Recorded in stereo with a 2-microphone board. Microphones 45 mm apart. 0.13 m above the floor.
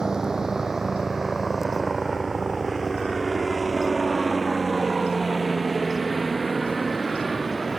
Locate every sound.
0.0 s a helicopter: 15° right (ahead or behind); by 7.8 s 5° left (ahead or behind)